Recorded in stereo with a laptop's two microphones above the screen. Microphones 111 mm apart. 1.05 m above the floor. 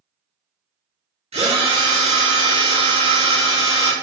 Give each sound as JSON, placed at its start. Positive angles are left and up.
{"t": 1.3, "sound": "a drill", "side_deg": -70, "distance_m": 1.2}